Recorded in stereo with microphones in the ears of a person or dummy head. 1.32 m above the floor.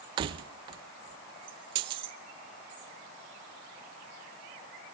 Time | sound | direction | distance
0.2 | keys jangling | 35° right (ahead or behind) | 0.5 m